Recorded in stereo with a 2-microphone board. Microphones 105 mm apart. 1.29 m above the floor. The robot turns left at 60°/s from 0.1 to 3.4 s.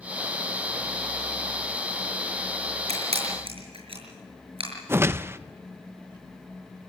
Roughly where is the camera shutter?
Right.